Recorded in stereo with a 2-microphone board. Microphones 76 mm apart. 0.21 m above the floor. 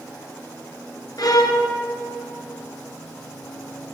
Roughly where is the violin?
Left.